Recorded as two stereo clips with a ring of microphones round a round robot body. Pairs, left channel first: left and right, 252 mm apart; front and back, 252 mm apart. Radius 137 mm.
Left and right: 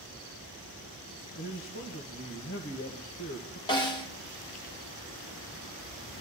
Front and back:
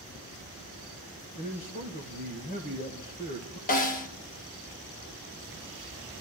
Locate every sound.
1.4 s a man speaking: 55° left, 1.7 m
3.7 s a snare drum: 30° left, 0.9 m